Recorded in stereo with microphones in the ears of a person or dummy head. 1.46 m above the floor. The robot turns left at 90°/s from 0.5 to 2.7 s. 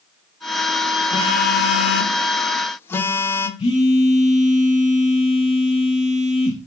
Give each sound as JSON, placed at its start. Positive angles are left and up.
{"t": 1.1, "sound": "a phone buzzing", "azimuth_deg": 155, "distance_m": 0.7}
{"t": 3.6, "sound": "a phone buzzing", "side_deg": 35, "distance_m": 1.0}